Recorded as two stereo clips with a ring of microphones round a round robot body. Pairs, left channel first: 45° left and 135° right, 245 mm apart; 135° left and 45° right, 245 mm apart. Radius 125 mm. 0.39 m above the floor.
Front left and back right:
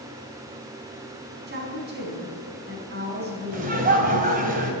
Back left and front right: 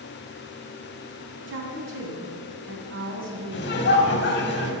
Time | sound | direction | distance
1.5 | a woman speaking | 85° right | 3.5 m
3.5 | laughter | 175° left | 2.5 m